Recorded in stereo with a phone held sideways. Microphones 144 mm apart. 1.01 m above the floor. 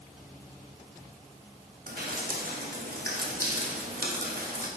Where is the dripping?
85° right, 1.1 m.